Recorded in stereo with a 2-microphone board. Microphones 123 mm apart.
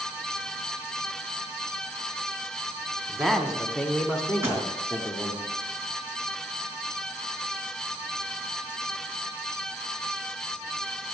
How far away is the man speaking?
About 1.4 m.